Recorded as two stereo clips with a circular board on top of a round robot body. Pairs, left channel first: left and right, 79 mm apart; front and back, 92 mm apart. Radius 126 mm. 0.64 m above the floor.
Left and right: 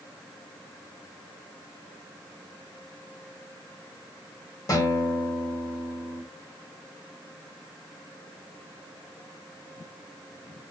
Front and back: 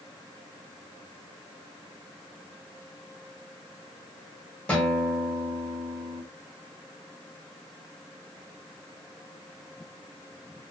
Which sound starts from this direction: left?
A guitar, at 4.7 s.